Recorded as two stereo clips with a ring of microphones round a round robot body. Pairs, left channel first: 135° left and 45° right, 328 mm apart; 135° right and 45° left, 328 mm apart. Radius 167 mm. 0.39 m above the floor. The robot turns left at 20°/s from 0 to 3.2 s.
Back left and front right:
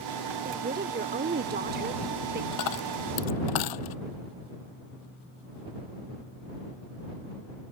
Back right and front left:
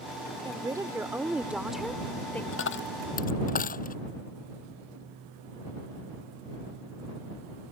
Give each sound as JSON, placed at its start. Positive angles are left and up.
{"t": 0.5, "sound": "a woman speaking", "azimuth_deg": -15}
{"t": 2.5, "sound": "a dropped coin", "azimuth_deg": 170}